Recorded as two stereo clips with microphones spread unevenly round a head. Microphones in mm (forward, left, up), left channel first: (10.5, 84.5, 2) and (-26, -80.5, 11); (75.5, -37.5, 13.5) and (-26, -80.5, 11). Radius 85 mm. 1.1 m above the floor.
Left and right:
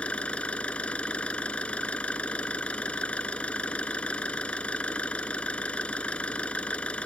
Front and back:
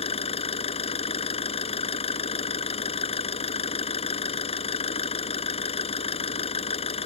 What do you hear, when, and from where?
0.0 s an engine running: 5° right